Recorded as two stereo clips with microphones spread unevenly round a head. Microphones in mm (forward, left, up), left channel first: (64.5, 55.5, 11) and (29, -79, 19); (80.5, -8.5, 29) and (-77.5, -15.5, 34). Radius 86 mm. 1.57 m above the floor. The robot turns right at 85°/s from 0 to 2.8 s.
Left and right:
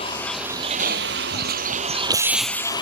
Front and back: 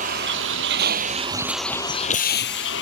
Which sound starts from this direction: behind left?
A vehicle, at 0.0 s.